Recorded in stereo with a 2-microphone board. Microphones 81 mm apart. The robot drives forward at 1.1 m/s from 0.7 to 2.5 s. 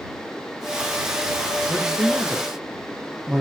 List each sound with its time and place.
1.7 s a man speaking: 15° right (ahead or behind), 1.9 m; by 3.4 s 10° right (ahead or behind), 2.5 m